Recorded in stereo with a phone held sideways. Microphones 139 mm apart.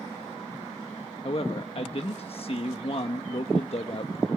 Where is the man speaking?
45° left (ahead or behind), 1.2 m.